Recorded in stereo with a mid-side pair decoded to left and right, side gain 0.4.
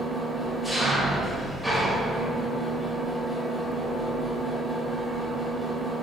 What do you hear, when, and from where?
0.0 s an engine running: 5° right, 1.6 m